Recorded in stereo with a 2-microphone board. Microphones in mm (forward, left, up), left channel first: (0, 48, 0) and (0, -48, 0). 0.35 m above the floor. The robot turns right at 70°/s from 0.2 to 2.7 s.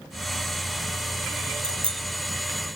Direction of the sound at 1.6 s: 60° right (ahead or behind).